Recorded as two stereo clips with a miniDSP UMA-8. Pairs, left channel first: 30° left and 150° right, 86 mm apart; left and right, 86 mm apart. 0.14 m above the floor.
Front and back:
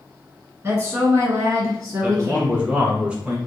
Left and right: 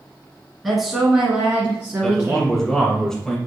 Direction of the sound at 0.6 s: 175° left.